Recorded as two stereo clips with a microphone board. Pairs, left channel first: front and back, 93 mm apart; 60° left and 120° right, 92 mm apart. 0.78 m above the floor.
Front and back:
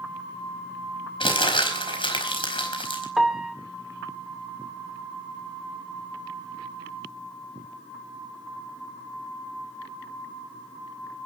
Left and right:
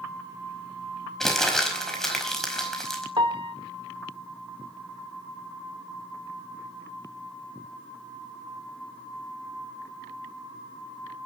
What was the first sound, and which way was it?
Crumpling, 25° right.